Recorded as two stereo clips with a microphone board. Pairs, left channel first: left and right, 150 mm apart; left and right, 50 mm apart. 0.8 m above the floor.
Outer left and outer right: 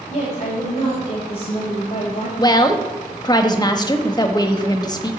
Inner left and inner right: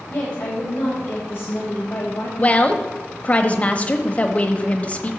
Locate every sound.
0.1 s a woman speaking: 45° left (ahead or behind), 3 m
2.4 s a woman speaking: 30° left (ahead or behind), 1.0 m